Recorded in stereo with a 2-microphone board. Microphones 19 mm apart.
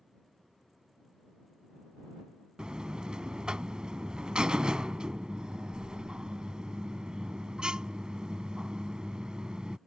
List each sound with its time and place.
2.6 s a buzzer: 50° right (ahead or behind)